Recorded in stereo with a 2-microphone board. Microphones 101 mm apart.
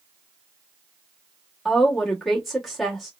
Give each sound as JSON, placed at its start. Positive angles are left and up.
{"t": 1.6, "sound": "a woman speaking", "side_deg": 0, "distance_m": 1.2}